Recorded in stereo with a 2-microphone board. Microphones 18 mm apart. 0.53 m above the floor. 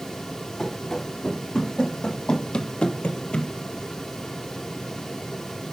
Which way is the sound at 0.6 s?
25° left (ahead or behind).